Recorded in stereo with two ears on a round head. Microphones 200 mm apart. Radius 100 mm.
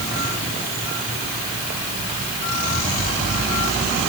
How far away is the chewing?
I don't hear chewing.